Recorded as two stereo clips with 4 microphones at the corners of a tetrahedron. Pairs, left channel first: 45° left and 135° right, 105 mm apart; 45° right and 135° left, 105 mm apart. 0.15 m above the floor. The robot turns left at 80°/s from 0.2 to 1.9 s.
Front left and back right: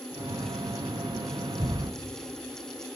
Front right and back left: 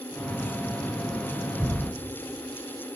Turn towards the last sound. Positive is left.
turn(degrees=-175)